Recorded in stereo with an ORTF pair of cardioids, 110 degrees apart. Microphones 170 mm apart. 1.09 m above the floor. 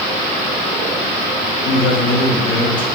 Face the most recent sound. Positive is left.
turn(degrees=25)